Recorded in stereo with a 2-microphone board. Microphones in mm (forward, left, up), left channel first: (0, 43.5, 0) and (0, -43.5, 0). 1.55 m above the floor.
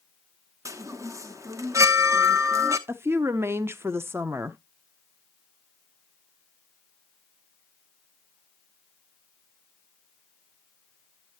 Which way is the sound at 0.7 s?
35° right (ahead or behind).